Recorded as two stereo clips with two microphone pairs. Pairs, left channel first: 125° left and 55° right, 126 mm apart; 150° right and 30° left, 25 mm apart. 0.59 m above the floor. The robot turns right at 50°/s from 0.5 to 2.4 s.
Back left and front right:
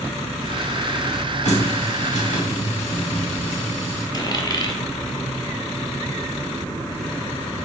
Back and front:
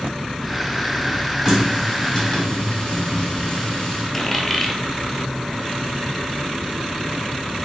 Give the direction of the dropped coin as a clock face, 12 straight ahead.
8 o'clock.